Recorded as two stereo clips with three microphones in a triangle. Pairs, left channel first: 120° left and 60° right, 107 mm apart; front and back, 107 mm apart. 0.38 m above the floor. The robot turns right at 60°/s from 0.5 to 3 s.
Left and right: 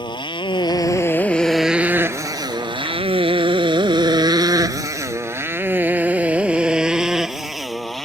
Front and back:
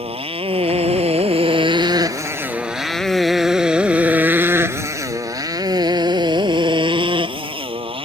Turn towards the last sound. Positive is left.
turn(degrees=-150)